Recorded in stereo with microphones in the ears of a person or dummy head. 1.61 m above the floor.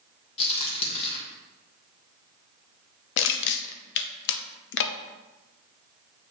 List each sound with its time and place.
0.4 s a crack: 35° left (ahead or behind), 1.6 m
3.2 s crushing: 70° left (ahead or behind), 0.5 m